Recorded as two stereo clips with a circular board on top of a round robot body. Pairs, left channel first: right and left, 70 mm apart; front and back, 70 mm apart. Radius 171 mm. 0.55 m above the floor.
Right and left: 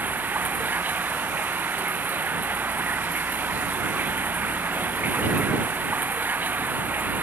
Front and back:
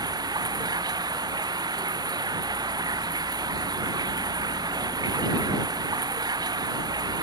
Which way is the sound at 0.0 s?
155° left.